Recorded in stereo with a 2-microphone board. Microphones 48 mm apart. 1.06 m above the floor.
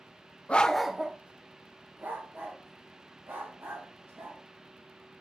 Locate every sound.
0.5 s a dog barking: 30° left (ahead or behind), 0.6 m; by 4.4 s 50° right (ahead or behind), 3.5 m